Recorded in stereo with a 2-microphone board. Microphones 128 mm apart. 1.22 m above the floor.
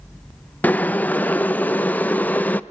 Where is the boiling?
15° left (ahead or behind), 0.5 m.